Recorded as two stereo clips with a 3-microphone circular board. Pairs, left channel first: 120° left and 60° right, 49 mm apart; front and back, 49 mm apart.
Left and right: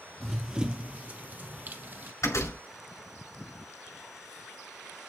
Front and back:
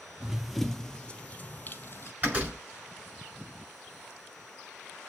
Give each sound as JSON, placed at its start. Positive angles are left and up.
{"t": 0.2, "sound": "running footsteps", "azimuth_deg": -130, "distance_m": 0.8}
{"t": 2.2, "sound": "a door slam", "azimuth_deg": 120, "distance_m": 6.0}